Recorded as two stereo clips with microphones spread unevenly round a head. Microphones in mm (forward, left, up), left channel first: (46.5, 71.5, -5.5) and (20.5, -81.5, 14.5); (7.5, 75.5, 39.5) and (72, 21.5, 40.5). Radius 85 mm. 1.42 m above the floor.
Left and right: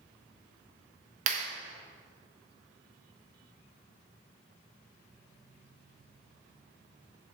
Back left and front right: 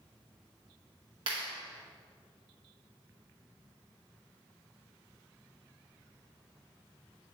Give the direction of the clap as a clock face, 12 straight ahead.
3 o'clock.